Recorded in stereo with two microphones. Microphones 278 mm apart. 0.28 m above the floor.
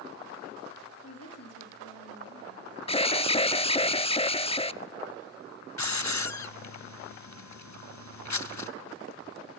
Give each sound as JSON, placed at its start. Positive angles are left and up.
{"t": 1.0, "sound": "a woman speaking", "side_deg": 60, "distance_m": 6.0}
{"t": 2.9, "sound": "an alarm", "side_deg": 20, "distance_m": 0.6}
{"t": 5.8, "sound": "a hiss", "side_deg": 80, "distance_m": 0.8}